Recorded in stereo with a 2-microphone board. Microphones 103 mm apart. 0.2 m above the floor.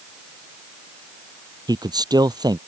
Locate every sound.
1.7 s a man speaking: 40° right (ahead or behind)